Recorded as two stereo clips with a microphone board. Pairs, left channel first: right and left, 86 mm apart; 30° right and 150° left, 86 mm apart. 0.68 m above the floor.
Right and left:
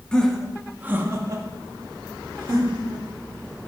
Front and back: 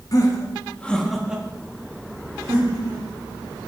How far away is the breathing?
No breathing in this recording.